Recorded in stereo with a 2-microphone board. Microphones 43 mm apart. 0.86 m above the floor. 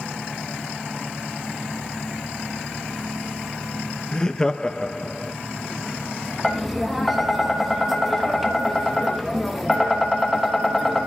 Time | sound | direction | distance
4.1 | laughter | 15° left (ahead or behind) | 0.5 m
6.4 | tapping | centre (ahead or behind) | 1.2 m